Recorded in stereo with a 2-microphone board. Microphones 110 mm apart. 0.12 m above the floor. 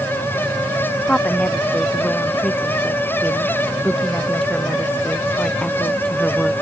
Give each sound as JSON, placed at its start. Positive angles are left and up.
{"t": 1.1, "sound": "a woman speaking", "side_deg": 10}